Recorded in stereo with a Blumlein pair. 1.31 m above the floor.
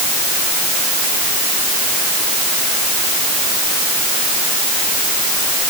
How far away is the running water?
No running water in this recording.